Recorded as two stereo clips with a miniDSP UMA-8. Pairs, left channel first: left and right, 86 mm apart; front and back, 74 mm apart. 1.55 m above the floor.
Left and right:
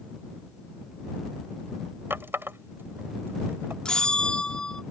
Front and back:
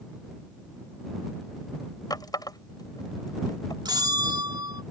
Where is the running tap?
25° right.